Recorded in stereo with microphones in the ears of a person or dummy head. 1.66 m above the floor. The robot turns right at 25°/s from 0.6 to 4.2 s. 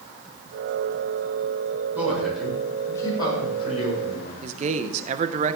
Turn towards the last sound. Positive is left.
turn(degrees=-40)  # may be behind; listen again after turning